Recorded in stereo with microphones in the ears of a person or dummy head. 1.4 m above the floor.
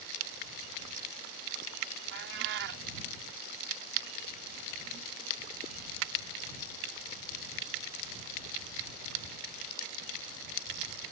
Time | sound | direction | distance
2.1 | a cat meowing | 60° right (ahead or behind) | ?